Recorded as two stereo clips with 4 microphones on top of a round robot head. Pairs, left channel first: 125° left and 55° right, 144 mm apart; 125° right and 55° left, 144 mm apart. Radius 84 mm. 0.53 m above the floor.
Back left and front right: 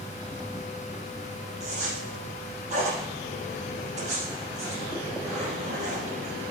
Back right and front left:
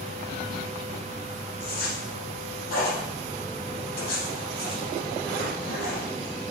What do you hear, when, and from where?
1.6 s a zipper: 100° right, 3.5 m